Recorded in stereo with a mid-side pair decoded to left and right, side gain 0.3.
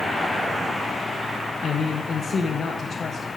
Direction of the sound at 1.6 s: 65° left.